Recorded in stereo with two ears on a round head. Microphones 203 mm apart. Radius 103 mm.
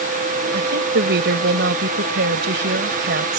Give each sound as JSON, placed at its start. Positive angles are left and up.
{"t": 0.5, "sound": "a woman speaking", "side_deg": -55}